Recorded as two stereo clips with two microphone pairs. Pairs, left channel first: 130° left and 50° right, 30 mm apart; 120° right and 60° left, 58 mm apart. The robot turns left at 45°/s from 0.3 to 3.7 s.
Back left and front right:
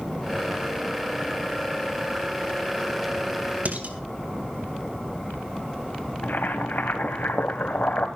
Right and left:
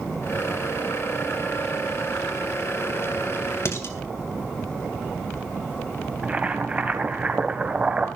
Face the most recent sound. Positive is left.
turn(degrees=130)